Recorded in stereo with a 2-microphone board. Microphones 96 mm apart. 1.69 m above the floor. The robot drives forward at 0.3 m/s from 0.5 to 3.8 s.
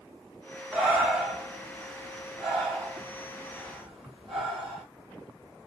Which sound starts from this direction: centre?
Breathing, at 0.7 s.